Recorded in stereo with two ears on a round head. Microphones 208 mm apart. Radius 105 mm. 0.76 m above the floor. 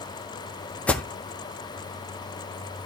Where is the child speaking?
No child speaking in this recording.